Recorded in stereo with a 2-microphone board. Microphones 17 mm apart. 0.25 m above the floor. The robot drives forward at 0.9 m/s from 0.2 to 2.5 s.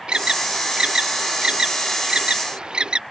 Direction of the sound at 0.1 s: 80° right.